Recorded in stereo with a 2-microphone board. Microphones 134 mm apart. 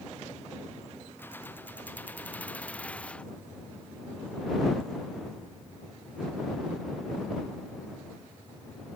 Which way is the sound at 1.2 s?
15° left (ahead or behind).